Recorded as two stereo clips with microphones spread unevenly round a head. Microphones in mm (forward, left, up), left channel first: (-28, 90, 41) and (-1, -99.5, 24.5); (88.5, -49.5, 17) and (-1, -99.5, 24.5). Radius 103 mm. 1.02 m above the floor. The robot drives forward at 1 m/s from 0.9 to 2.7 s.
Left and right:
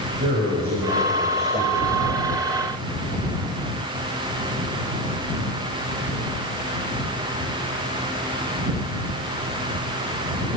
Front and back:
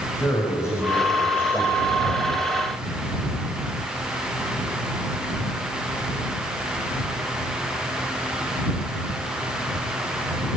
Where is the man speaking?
35° right, 6 m; by 2.4 s 50° right, 4.5 m.